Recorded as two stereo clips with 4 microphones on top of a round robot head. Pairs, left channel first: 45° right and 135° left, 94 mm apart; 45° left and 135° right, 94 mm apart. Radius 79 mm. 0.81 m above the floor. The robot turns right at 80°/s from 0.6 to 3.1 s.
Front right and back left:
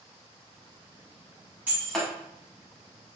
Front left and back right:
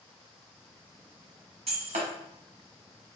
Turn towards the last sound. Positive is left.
turn(degrees=-40)